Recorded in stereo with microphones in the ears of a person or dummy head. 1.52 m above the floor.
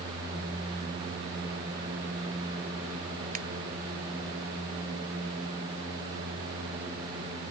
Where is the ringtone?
40° right (ahead or behind).